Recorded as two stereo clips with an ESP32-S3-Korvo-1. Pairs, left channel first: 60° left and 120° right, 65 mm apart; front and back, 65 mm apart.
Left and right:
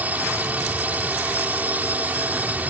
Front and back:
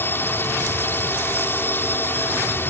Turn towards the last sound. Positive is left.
turn(degrees=-55)